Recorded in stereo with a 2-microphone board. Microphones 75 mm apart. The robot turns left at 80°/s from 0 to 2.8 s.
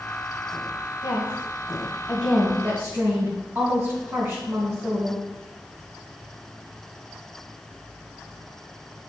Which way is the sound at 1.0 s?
90° left.